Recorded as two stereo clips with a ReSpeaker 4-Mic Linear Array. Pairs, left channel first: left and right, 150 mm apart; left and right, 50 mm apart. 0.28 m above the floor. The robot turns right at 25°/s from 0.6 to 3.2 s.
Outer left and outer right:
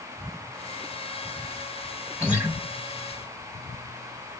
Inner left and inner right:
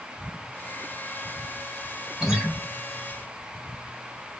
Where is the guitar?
10° right (ahead or behind), 1.9 m; by 2.5 s 15° right (ahead or behind), 1.9 m.